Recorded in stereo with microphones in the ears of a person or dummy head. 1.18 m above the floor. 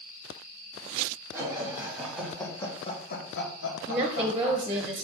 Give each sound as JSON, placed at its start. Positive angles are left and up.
{"t": 1.3, "sound": "laughter", "side_deg": -15, "distance_m": 1.6}
{"t": 3.9, "sound": "a woman speaking", "side_deg": -10, "distance_m": 0.5}